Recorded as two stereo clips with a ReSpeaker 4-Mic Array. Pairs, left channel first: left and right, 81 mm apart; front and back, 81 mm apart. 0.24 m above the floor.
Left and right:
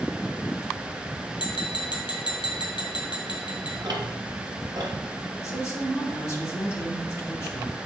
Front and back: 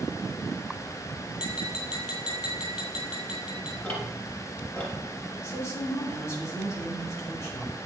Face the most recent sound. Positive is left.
turn(degrees=45)